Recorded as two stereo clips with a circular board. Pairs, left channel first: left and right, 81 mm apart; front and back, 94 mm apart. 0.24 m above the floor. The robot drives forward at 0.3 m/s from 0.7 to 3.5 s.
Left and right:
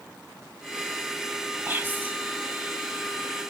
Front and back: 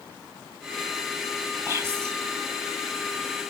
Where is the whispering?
140° right, 1.3 m; by 2.1 s 145° right, 1.4 m.